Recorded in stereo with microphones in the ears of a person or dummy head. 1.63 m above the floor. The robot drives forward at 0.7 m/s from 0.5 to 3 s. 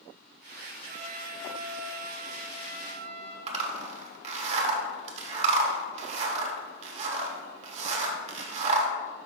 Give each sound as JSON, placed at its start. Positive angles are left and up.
{"t": 0.9, "sound": "a trumpet", "side_deg": -35, "distance_m": 2.5}
{"t": 3.5, "sound": "a zipper", "side_deg": -40, "distance_m": 1.1}